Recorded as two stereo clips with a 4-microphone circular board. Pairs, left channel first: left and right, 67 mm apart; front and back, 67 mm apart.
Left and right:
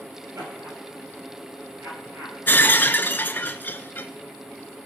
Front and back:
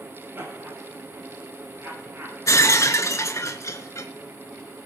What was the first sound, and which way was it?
Laughter, 130° right.